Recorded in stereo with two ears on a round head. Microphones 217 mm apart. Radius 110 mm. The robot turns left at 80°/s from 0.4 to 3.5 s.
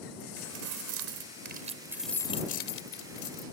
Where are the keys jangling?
50° right; by 3.4 s 70° left.